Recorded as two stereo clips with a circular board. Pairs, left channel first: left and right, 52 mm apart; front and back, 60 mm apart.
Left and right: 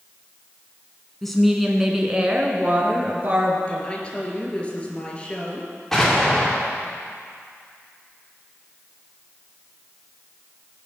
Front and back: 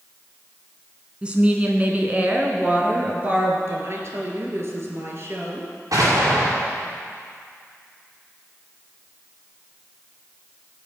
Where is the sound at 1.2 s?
160° left, 1.6 m; by 3.6 s 130° right, 2.5 m.